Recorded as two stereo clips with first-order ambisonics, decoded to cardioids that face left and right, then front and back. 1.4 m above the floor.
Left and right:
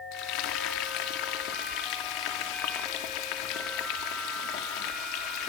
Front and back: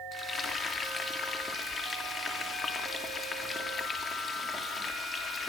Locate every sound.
0.1 s frying: 70° left, 3 m